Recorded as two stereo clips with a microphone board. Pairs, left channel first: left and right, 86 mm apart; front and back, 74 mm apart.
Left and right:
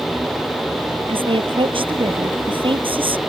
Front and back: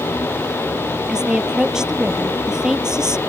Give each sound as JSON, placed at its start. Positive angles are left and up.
{"t": 1.1, "sound": "a woman speaking", "azimuth_deg": -100}